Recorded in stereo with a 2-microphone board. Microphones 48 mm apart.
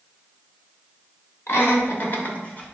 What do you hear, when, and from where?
1.5 s laughter: 55° left (ahead or behind), 2 m; by 2.7 s 25° left (ahead or behind), 1.9 m